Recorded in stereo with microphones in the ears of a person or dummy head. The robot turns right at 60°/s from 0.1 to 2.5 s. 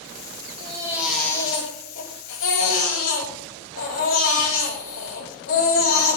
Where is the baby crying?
30° right, 9 m; by 6.2 s 85° left, 9 m.